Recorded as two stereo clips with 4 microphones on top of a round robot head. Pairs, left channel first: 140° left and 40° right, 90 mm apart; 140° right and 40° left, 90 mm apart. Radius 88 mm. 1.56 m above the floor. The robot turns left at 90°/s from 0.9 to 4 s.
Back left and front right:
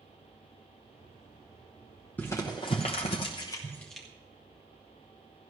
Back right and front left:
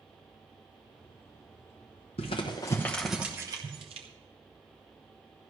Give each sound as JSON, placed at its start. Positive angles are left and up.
{"t": 2.2, "sound": "crumpling", "azimuth_deg": -150, "distance_m": 0.9}